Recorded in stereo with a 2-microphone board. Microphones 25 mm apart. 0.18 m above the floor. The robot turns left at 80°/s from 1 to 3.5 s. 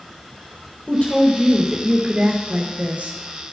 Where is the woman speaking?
65° left, 3 m; by 3.2 s 110° right, 3 m.